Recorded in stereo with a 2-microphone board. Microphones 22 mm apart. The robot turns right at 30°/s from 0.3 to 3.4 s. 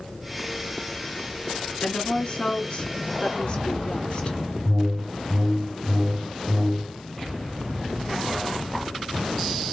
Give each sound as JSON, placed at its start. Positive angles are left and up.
{"t": 1.8, "sound": "a woman speaking", "azimuth_deg": 90, "distance_m": 2.0}
{"t": 4.7, "sound": "a whoosh", "side_deg": -45, "distance_m": 3.0}